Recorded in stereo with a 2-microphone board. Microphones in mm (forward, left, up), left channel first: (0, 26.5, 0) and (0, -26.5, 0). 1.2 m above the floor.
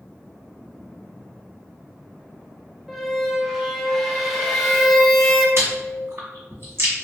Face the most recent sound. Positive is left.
turn(degrees=-55)  # may be behind; listen again after turning